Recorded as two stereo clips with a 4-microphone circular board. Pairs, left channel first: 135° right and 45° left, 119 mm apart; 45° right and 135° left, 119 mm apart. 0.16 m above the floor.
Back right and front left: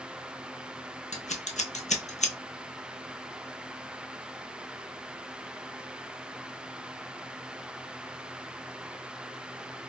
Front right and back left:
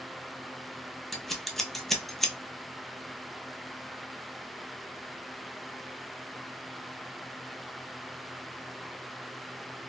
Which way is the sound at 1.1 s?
135° right.